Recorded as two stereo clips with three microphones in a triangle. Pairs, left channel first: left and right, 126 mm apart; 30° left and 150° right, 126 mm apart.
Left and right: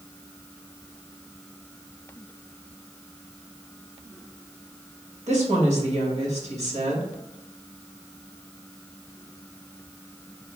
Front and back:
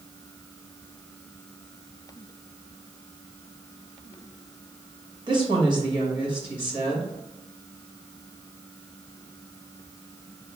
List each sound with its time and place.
5.3 s a woman speaking: 100° right, 1.5 m